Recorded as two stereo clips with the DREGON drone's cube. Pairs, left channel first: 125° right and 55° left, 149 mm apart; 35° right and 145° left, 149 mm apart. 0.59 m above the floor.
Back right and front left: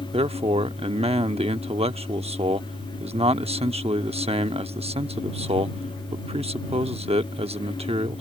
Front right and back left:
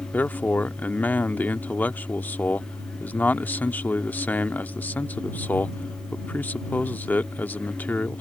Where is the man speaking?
40° left.